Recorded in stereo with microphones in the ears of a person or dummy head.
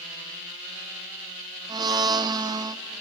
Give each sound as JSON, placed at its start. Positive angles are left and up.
{"t": 1.7, "sound": "a blender", "side_deg": -30, "distance_m": 0.6}